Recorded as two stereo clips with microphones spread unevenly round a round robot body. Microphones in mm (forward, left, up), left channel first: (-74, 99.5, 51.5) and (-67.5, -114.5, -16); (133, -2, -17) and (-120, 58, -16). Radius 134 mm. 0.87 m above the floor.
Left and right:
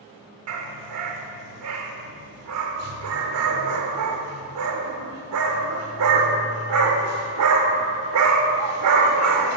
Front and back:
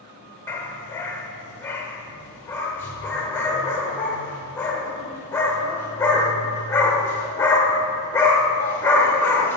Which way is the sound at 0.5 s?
90° right.